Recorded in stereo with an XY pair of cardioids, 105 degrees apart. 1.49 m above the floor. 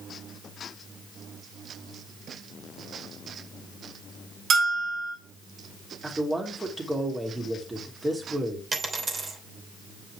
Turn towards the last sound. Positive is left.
turn(degrees=-35)